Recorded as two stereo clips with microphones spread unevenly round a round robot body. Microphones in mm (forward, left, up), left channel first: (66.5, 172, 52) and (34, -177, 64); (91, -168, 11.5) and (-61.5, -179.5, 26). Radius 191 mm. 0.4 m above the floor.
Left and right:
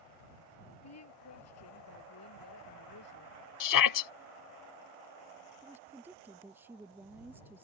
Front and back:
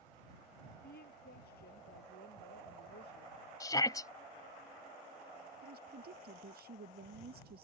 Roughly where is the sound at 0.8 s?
Ahead left.